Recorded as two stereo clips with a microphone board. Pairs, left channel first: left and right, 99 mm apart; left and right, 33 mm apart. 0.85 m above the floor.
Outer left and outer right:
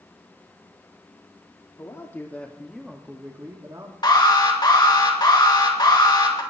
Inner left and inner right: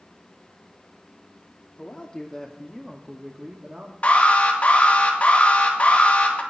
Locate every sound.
1.8 s a man speaking: 30° left (ahead or behind), 2 m; by 3.9 s 40° right (ahead or behind), 2 m
4.0 s an alarm: 45° left (ahead or behind), 2.5 m